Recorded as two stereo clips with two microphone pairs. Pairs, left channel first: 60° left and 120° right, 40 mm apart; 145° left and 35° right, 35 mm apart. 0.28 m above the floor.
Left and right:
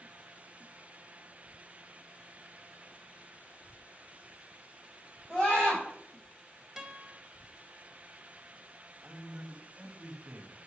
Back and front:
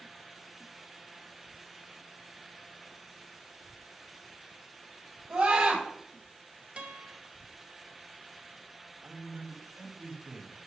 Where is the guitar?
40° right, 1.2 m.